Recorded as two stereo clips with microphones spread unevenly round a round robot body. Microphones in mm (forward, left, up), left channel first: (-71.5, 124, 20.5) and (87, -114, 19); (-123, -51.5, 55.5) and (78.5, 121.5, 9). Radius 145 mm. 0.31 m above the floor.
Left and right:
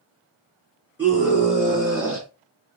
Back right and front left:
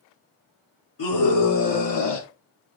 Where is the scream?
140° right, 5 m; by 2.3 s 135° right, 3.5 m.